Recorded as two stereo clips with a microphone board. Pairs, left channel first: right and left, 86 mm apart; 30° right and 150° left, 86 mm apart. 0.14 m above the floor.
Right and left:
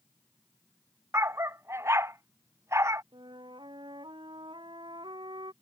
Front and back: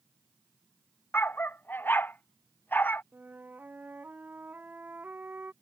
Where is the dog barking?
35° left.